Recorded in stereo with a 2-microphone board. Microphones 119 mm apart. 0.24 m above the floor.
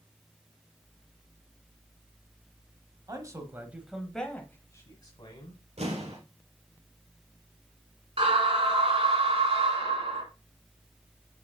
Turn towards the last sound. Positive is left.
turn(degrees=-60)  # may be behind; listen again after turning